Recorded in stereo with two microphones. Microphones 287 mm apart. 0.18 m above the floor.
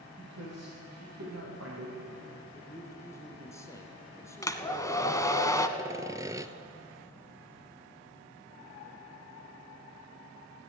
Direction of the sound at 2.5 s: 10° left (ahead or behind).